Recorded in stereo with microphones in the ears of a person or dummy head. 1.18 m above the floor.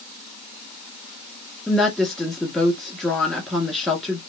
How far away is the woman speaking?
About 1.6 m.